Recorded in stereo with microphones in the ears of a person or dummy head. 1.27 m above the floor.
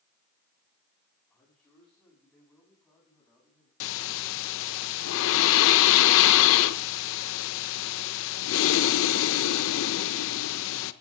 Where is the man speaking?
10° left (ahead or behind), 10 m; by 3.7 s centre (ahead or behind), 9 m.